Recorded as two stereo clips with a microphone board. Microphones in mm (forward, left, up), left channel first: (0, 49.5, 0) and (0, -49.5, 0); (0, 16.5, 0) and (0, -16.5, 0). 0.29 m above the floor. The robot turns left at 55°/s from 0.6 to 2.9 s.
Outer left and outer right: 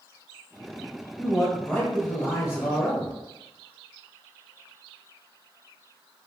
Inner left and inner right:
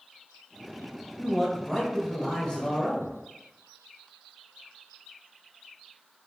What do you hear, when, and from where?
1.2 s a man speaking: 170° right, 1.1 m; by 3.1 s 95° left, 1.1 m